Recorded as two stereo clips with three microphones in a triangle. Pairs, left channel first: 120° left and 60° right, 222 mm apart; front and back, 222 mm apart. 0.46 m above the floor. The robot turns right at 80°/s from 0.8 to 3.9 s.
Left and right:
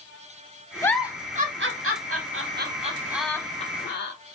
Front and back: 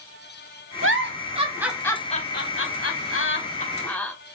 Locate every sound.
0.8 s a giggle: 160° right, 0.7 m; by 4.1 s 85° left, 0.7 m